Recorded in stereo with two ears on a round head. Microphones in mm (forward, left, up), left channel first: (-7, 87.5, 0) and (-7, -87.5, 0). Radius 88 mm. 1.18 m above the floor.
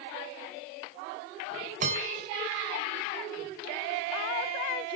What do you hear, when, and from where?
1.8 s a bell: 40° right (ahead or behind), 5 m